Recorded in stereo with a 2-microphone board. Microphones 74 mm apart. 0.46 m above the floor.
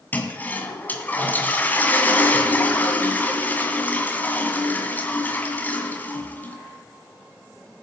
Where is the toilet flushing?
20° left (ahead or behind), 2 m.